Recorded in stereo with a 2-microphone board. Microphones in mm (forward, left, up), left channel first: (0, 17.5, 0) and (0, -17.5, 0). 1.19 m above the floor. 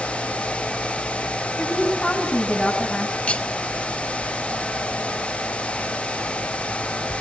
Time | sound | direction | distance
1.6 | a woman speaking | 30° left (ahead or behind) | 8 m
3.3 | cutlery clinking | 35° left (ahead or behind) | 1.5 m